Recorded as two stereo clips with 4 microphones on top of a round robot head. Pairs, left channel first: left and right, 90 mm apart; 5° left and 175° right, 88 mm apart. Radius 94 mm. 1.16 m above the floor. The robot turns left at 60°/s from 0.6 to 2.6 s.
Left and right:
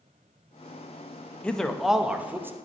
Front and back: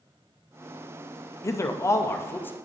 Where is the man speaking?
20° left, 0.7 m; by 2.6 s 45° right, 0.7 m.